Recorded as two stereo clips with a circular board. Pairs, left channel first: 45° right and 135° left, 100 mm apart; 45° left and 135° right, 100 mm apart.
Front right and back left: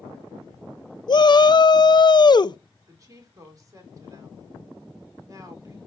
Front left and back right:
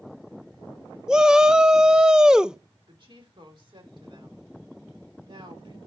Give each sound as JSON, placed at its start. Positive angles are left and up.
{"t": 1.1, "sound": "a shout", "azimuth_deg": -55, "distance_m": 0.5}
{"t": 2.9, "sound": "a woman speaking", "azimuth_deg": -170, "distance_m": 3.5}